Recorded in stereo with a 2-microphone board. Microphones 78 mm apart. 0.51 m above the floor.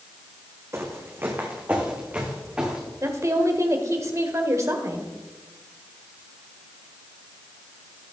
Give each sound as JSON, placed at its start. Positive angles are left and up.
{"t": 0.7, "sound": "footsteps", "side_deg": -35, "distance_m": 2.0}
{"t": 3.0, "sound": "a woman speaking", "side_deg": -40, "distance_m": 1.6}